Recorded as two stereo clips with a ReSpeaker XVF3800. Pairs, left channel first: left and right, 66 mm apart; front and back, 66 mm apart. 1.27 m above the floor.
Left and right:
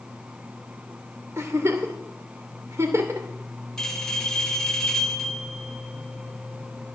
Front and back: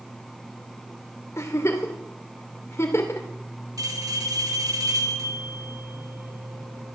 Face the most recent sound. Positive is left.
turn(degrees=170)